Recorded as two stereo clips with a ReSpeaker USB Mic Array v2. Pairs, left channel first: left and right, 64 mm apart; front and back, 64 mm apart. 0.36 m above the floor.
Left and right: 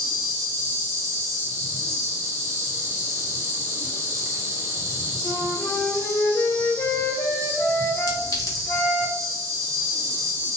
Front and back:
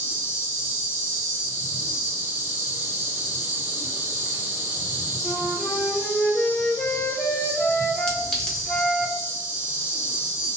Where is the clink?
75° left, 1.0 m.